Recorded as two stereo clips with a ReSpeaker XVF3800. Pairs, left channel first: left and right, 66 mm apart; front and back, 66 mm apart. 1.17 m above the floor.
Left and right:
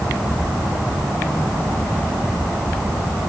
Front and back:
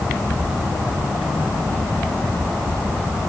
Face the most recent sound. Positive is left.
No sound to turn to.